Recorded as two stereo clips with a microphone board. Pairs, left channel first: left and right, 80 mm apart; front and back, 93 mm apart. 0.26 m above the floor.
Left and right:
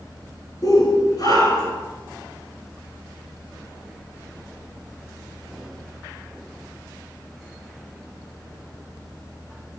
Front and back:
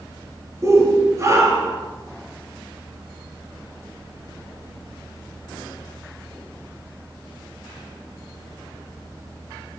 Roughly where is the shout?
Behind left.